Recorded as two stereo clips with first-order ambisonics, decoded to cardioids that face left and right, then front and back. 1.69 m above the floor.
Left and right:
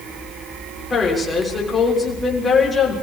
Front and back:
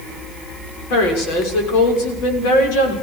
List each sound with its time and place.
0.9 s a woman speaking: 15° left, 6.5 m